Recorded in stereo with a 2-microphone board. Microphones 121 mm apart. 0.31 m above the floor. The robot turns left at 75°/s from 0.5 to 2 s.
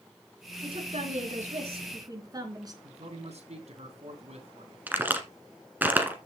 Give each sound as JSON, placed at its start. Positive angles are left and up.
{"t": 0.6, "sound": "a woman speaking", "azimuth_deg": -45, "distance_m": 3.5}
{"t": 2.8, "sound": "a man speaking", "side_deg": -60, "distance_m": 3.0}
{"t": 4.9, "sound": "a crack", "side_deg": -15, "distance_m": 1.8}